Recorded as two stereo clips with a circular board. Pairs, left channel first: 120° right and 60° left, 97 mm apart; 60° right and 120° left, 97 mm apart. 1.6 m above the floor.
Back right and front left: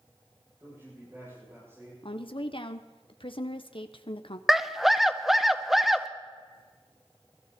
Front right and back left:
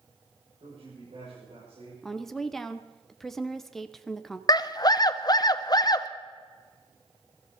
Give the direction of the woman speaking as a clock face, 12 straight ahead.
5 o'clock.